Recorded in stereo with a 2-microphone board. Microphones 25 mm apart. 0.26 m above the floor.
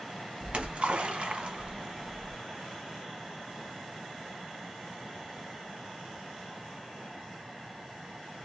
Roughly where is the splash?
Right.